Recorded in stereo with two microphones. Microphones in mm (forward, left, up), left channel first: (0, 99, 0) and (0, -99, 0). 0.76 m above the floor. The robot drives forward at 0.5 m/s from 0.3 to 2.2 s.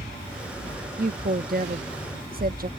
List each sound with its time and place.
1.0 s a woman speaking: 45° right (ahead or behind); by 2.7 s 50° right (ahead or behind)